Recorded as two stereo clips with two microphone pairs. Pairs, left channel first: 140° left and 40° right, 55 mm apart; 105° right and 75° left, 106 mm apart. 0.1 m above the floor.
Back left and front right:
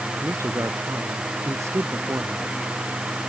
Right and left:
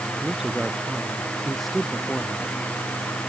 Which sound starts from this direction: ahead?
A woman speaking, at 0.2 s.